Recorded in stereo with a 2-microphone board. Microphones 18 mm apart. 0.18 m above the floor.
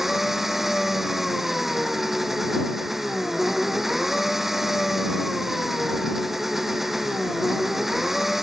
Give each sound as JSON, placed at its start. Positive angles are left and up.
{"t": 0.0, "sound": "an engine running", "side_deg": -15}